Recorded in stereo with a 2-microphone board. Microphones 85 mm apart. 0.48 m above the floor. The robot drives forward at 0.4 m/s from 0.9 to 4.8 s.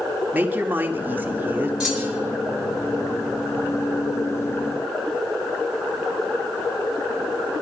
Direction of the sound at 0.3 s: 20° right (ahead or behind).